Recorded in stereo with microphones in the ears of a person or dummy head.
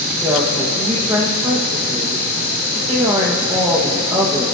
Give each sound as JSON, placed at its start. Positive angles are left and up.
{"t": 0.2, "sound": "a woman speaking", "side_deg": -5, "distance_m": 1.5}